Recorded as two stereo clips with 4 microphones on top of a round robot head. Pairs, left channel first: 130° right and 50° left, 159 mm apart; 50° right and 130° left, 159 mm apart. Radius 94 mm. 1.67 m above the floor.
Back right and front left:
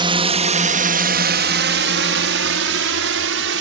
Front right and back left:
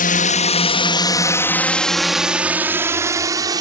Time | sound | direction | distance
0.0 | a drone | 10° right | ?